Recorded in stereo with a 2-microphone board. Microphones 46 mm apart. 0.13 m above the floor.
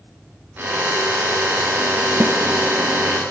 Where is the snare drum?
50° right (ahead or behind), 1.8 m.